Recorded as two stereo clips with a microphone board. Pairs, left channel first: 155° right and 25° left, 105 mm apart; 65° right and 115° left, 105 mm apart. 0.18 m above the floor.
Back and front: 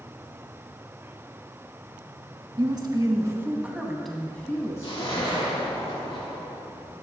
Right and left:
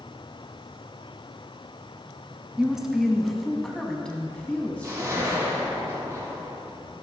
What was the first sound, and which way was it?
A woman speaking, 30° left.